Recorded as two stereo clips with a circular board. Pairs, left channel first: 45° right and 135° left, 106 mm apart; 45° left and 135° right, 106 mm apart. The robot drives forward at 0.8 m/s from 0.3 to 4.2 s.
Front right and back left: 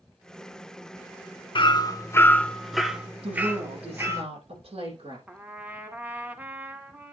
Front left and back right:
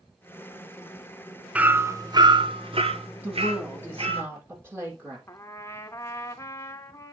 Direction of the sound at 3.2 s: 155° left.